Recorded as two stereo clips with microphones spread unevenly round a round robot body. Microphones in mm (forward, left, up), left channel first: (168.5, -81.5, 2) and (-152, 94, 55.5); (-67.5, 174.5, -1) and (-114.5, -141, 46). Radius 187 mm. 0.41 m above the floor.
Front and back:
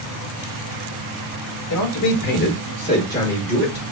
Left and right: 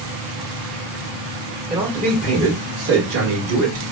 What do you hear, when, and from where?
1.7 s a man speaking: 15° right, 1.1 m; by 3.8 s 110° right, 1.3 m